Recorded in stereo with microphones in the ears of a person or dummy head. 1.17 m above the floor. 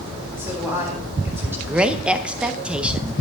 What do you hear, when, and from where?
0.4 s a woman speaking: 10° right (ahead or behind), 3.5 m
1.7 s a woman speaking: 5° right (ahead or behind), 0.8 m